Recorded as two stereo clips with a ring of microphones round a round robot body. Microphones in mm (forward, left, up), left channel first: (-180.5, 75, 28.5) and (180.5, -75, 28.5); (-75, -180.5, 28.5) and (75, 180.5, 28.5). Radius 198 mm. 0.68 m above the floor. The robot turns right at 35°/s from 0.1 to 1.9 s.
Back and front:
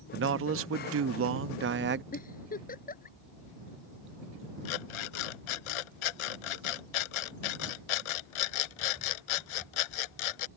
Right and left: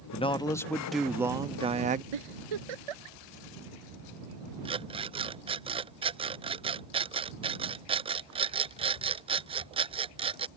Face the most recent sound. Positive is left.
turn(degrees=145)